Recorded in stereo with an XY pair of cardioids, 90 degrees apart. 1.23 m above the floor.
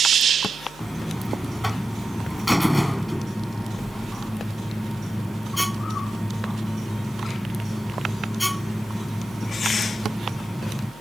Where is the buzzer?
10° left.